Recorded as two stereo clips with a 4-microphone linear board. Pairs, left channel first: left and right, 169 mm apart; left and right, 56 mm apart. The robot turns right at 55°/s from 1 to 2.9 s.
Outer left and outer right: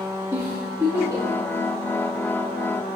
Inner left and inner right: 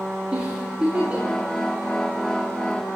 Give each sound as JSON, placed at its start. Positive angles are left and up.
{"t": 0.3, "sound": "a giggle", "side_deg": -20, "distance_m": 9.0}